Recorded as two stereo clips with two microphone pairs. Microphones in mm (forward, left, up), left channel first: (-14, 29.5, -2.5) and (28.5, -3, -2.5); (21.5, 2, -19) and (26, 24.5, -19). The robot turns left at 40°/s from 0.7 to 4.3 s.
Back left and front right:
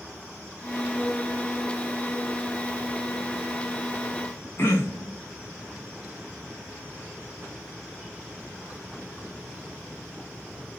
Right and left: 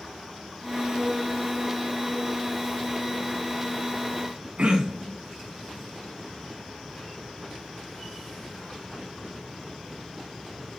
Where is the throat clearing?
110° left, 3.5 m.